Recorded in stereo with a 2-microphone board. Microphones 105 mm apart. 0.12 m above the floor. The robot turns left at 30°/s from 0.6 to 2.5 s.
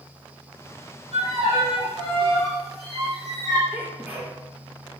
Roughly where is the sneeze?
Centre.